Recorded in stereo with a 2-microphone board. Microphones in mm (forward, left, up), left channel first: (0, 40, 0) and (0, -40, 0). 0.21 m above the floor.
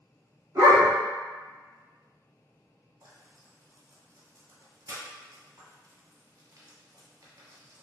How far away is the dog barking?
About 1.0 m.